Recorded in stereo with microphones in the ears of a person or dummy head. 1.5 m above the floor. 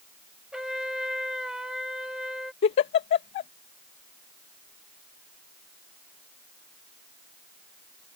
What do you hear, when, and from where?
0.5 s a trumpet: centre (ahead or behind)
2.6 s a giggle: 30° left (ahead or behind)